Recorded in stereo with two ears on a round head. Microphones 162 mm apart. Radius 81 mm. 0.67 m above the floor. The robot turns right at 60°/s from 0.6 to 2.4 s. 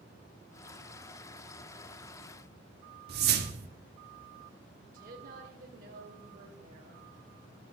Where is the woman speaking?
50° right (ahead or behind), 3 m.